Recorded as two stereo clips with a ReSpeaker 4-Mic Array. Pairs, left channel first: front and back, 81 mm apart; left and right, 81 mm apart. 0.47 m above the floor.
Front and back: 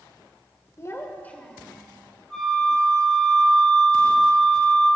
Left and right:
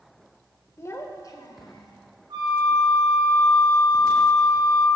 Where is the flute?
85° right, 3 m.